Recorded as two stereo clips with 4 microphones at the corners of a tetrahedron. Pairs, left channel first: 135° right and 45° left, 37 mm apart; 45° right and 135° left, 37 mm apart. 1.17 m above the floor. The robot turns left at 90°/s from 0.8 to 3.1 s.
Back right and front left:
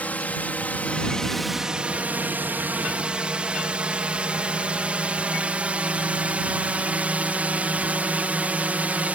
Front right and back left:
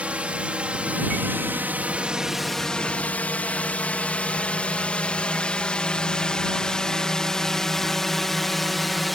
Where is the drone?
175° right; by 9.2 s 45° left.